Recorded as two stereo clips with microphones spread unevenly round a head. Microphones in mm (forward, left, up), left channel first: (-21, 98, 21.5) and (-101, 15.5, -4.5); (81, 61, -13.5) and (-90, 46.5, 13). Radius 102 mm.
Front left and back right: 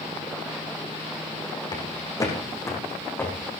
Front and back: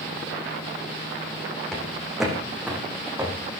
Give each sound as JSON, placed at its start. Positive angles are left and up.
{"t": 1.7, "sound": "footsteps", "azimuth_deg": 95, "distance_m": 5.0}